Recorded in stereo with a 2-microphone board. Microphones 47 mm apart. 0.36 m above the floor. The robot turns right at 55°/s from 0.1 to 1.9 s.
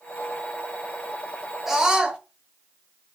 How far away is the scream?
About 1.4 m.